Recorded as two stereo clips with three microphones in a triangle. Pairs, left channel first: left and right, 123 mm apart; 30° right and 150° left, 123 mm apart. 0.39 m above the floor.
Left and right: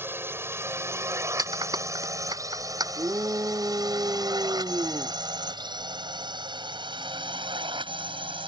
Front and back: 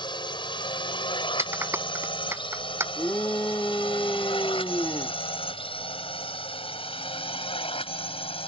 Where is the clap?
140° right.